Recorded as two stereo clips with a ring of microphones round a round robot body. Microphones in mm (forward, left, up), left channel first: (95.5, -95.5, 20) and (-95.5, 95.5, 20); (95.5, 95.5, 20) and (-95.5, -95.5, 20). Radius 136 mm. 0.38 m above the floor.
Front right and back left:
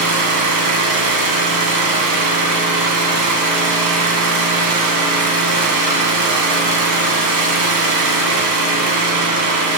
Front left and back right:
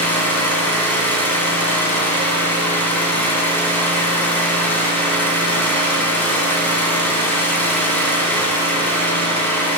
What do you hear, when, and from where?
0.0 s an engine running: 130° left, 3.5 m